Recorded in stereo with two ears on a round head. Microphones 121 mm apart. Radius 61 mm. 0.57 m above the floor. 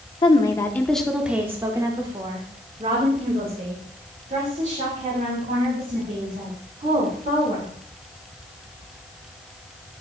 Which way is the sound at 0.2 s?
35° left (ahead or behind).